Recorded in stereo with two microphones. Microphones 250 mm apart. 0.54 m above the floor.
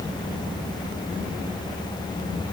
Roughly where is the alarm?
I don't hear an alarm.